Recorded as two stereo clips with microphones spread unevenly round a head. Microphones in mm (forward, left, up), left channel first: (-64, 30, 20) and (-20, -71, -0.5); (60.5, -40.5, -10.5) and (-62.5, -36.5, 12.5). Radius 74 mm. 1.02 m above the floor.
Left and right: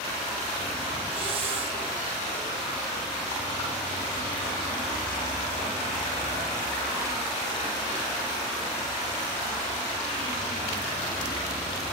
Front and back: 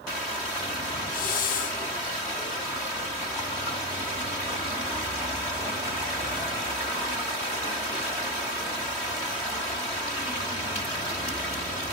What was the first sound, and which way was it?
A hiss, 10° right.